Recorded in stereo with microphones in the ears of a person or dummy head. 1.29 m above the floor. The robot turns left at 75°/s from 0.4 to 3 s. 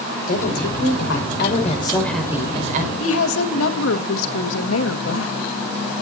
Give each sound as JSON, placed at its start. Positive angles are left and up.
{"t": 0.3, "sound": "a woman speaking", "azimuth_deg": 135, "distance_m": 5.5}
{"t": 3.0, "sound": "a woman speaking", "side_deg": 85, "distance_m": 1.9}